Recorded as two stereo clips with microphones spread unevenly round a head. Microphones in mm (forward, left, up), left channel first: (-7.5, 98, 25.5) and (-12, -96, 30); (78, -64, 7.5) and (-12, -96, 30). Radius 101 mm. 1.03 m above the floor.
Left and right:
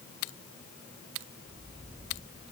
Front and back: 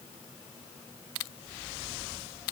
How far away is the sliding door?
No sliding door in this recording.